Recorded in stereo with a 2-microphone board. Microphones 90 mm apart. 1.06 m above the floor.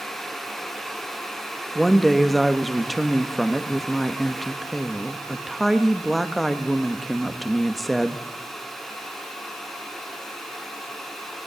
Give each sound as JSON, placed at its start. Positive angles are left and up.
{"t": 1.8, "sound": "a woman speaking", "side_deg": 0, "distance_m": 1.2}